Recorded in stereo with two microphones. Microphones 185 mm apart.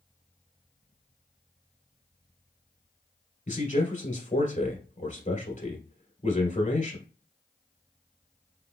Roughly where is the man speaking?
Left.